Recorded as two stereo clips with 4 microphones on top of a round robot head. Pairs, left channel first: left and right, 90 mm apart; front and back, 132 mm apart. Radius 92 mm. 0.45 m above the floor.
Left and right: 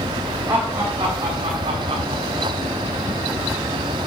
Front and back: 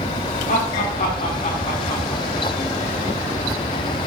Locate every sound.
0.5 s laughter: 20° right, 2.5 m; by 2.5 s 65° right, 2.5 m